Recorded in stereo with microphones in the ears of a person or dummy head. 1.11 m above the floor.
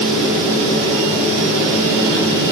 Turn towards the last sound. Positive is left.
No sound to turn to.